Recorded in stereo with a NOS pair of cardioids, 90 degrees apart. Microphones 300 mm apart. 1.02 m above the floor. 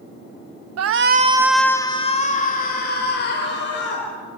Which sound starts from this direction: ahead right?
A shout, at 0.8 s.